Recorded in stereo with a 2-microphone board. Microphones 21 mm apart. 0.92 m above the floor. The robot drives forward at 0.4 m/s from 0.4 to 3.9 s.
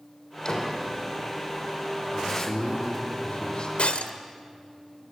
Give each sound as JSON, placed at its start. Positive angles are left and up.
{"t": 0.5, "sound": "a door slam", "side_deg": 35, "distance_m": 3.0}
{"t": 2.1, "sound": "a man speaking", "side_deg": 50, "distance_m": 2.5}
{"t": 3.8, "sound": "breaking glass", "side_deg": 75, "distance_m": 1.6}